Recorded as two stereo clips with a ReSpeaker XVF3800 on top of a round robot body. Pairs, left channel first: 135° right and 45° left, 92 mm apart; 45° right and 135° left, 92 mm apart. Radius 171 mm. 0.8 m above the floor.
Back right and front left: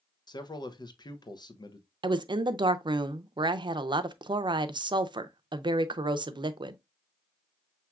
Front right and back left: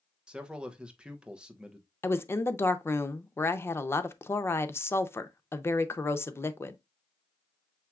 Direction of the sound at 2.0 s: 15° left.